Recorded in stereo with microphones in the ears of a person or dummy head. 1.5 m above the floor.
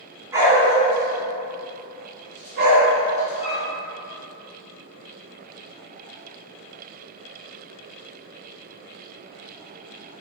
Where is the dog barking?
15° right (ahead or behind), 2 m; by 3.6 s 65° right (ahead or behind), 3.5 m.